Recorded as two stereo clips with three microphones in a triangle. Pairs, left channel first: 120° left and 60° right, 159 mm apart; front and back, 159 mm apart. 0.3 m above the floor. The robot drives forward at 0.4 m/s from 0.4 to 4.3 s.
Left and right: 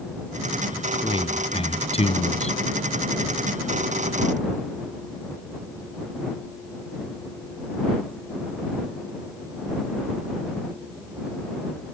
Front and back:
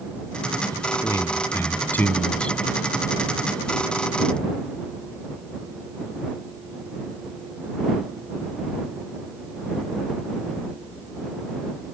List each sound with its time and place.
0.7 s a man speaking: 65° left; by 2.6 s 85° left